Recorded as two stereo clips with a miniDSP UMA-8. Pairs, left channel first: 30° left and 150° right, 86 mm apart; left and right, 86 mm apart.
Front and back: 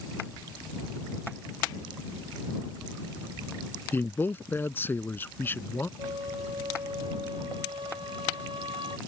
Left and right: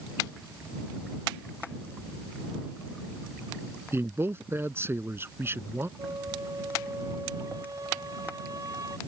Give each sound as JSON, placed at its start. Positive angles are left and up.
{"t": 3.9, "sound": "a man speaking", "azimuth_deg": -30}
{"t": 6.0, "sound": "a flute", "azimuth_deg": -135}